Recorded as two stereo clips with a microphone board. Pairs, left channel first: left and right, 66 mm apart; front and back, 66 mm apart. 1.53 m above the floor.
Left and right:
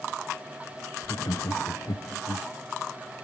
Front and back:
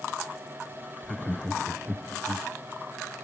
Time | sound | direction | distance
1.0 | laughter | 80° left | 0.7 m